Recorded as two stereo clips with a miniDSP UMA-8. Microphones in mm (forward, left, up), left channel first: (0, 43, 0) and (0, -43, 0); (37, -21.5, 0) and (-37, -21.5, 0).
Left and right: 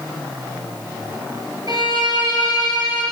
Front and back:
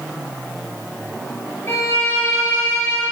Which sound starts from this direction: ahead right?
A violin, at 1.7 s.